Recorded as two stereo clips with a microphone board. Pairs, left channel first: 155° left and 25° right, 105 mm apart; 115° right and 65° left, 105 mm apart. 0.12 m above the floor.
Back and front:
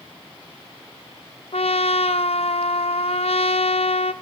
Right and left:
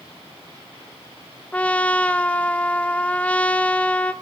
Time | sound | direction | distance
1.5 | a trumpet | 170° left | 0.8 m